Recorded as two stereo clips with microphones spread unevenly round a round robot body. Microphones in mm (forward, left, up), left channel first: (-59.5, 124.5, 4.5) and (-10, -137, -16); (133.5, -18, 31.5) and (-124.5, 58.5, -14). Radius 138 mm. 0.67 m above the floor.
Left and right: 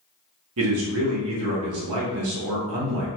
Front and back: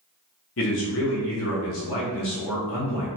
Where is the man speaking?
60° right, 0.8 m.